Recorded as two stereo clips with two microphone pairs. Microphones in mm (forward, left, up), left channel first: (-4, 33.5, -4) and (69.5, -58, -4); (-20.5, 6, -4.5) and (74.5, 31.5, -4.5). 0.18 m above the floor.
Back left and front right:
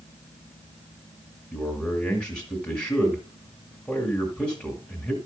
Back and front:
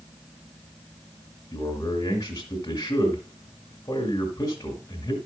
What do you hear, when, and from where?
1.5 s a man speaking: 150° right, 1.8 m